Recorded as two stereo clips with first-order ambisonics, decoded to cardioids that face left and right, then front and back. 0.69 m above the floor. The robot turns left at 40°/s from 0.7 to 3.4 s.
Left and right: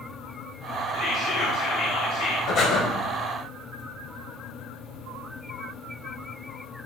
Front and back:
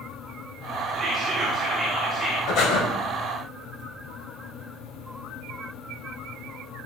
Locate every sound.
0.9 s whispering: 125° left, 2 m; by 2.4 s 65° left, 2 m
2.5 s breathing: 45° left, 3 m; by 2.8 s 30° left, 3 m